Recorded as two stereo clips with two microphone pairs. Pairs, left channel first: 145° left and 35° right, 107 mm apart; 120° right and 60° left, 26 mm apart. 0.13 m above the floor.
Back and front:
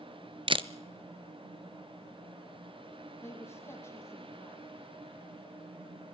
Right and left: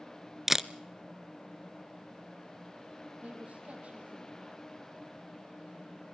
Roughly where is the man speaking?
Left.